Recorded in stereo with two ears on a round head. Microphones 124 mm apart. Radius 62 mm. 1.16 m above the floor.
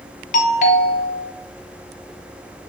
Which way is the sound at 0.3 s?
60° left (ahead or behind).